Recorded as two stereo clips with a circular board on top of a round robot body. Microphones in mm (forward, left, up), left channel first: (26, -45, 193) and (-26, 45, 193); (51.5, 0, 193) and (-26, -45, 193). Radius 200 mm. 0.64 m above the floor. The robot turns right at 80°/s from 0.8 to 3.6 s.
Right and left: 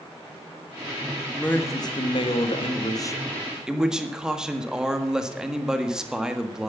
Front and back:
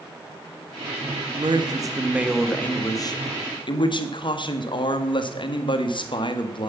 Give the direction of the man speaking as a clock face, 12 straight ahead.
5 o'clock.